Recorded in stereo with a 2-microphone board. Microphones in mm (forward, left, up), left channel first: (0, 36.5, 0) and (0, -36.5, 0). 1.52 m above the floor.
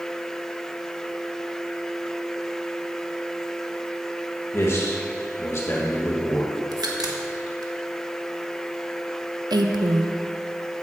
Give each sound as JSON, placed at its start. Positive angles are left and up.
{"t": 4.5, "sound": "a man speaking", "side_deg": 35, "distance_m": 1.8}
{"t": 6.7, "sound": "a crack", "side_deg": -65, "distance_m": 1.6}
{"t": 9.5, "sound": "a woman speaking", "side_deg": -75, "distance_m": 1.1}